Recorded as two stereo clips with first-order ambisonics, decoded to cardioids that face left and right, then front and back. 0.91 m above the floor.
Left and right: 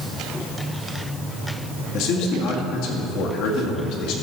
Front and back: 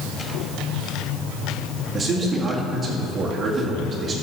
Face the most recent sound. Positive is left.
turn(degrees=110)